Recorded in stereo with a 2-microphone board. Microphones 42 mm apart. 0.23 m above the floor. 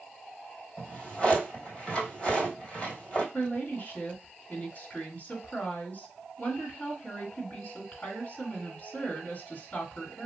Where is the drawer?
25° left (ahead or behind), 2 m.